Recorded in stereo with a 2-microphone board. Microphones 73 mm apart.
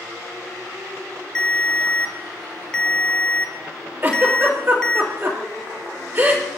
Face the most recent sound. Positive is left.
turn(degrees=-35)  # may be behind; listen again after turning